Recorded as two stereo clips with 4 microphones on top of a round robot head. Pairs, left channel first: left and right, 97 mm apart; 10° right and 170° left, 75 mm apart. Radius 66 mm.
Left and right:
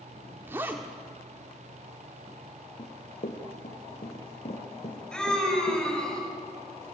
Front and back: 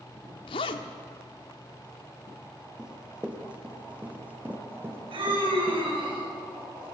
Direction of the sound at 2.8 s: 90° left.